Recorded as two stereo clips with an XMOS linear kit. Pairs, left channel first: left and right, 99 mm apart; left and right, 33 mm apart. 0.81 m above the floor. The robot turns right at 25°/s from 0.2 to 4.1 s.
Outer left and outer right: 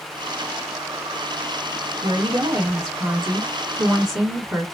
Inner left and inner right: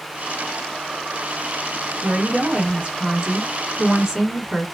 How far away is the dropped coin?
No dropped coin in this recording.